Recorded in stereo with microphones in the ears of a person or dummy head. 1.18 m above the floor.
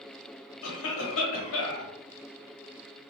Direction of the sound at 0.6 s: 75° left (ahead or behind).